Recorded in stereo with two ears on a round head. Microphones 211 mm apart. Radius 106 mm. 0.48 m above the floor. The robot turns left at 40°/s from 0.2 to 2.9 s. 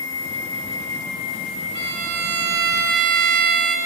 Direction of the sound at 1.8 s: 55° right.